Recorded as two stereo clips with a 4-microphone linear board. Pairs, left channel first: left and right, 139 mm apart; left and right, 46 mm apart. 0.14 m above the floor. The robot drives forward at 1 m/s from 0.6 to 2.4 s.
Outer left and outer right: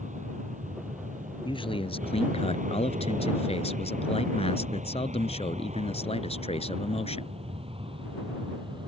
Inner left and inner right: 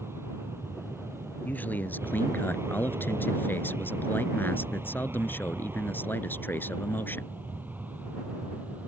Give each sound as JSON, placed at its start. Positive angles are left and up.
{"t": 0.0, "sound": "an aircraft", "side_deg": -65}
{"t": 1.4, "sound": "a man speaking", "side_deg": 35}